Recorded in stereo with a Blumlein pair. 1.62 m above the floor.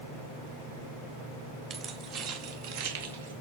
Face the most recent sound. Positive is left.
turn(degrees=-65)